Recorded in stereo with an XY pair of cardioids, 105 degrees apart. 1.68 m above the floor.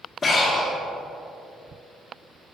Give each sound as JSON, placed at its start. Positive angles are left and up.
{"t": 0.2, "sound": "breathing", "azimuth_deg": 40, "distance_m": 2.0}